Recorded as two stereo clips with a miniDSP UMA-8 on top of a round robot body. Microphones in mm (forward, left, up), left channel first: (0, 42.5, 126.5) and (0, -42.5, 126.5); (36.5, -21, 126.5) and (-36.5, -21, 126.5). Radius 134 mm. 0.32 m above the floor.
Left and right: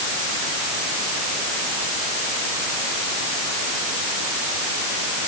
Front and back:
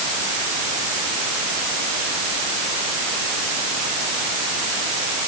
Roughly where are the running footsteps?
I don't hear running footsteps.